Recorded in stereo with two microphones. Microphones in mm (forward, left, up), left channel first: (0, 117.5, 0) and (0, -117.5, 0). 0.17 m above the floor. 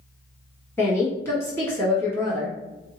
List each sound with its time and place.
0.8 s a woman speaking: 10° left (ahead or behind), 1.5 m